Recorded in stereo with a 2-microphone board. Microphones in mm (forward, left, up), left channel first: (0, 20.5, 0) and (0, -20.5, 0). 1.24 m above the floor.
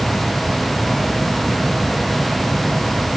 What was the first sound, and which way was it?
Only background noise.